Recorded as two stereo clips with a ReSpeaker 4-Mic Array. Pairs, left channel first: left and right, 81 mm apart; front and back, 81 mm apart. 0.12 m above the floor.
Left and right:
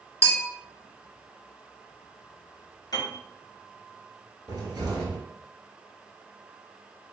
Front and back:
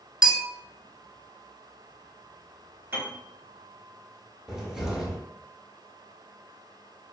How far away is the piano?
About 0.8 m.